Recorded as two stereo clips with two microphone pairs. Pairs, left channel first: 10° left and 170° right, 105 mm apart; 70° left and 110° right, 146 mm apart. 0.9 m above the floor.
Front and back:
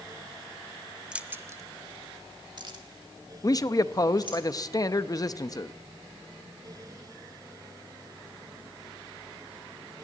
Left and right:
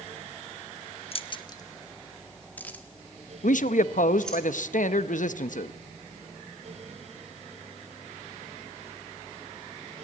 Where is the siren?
No siren in this recording.